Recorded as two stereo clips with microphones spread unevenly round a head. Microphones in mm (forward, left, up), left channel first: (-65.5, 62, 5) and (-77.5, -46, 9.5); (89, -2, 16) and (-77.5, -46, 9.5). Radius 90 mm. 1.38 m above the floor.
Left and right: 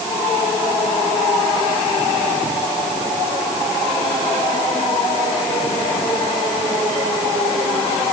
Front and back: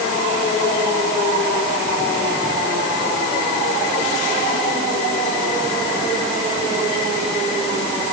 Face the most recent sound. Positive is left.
No sound to turn to.